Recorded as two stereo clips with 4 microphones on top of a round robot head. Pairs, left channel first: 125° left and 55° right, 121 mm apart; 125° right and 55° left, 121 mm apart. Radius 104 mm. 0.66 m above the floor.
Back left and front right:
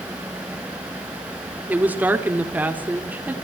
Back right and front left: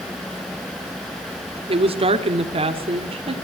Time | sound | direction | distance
1.7 | a woman speaking | 20° left | 1.6 m